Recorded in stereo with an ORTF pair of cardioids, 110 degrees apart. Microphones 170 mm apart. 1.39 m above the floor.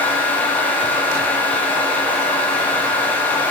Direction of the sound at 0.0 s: 10° left.